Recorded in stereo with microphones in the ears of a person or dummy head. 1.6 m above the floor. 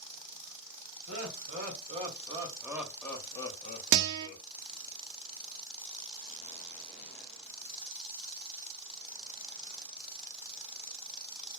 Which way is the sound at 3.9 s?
60° right (ahead or behind).